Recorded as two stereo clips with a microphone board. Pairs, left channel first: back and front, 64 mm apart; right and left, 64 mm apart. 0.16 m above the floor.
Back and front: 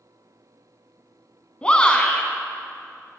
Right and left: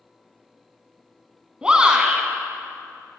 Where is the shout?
140° left, 1.0 m.